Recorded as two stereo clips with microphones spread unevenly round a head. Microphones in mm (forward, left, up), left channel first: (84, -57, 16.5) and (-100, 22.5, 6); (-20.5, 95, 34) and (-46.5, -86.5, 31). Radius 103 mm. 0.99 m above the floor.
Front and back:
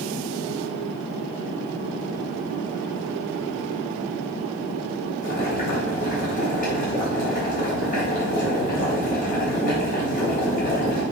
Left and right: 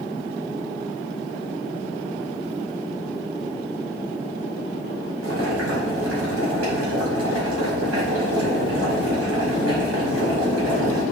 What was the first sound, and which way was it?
Boiling, 70° right.